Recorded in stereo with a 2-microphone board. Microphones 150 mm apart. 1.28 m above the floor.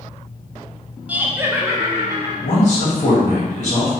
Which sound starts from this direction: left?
A man speaking, at 2.4 s.